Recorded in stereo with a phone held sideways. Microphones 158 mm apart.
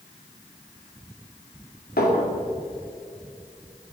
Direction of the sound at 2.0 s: 80° left.